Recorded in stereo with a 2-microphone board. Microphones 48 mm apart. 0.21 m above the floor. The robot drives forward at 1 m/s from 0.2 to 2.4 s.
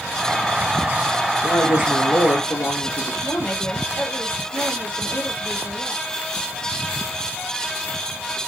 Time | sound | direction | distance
1.4 | a woman speaking | 75° left (ahead or behind) | 4.5 m
3.2 | a woman speaking | 35° left (ahead or behind) | 5 m